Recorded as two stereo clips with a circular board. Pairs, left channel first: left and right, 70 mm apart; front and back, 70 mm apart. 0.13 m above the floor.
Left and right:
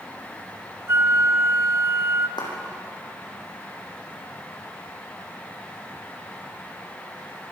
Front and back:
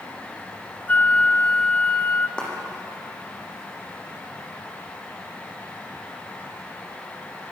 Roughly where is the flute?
Ahead right.